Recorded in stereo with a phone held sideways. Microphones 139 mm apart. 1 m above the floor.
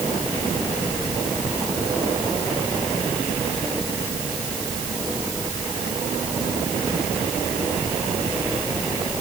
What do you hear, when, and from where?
Only background noise.